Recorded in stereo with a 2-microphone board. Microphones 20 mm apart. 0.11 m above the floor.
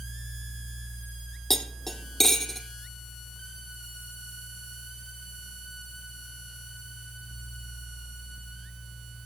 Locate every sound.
1.5 s cutlery clinking: 15° left (ahead or behind), 2 m